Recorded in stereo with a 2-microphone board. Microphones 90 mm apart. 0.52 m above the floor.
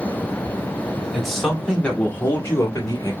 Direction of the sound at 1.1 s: Centre (ahead or behind).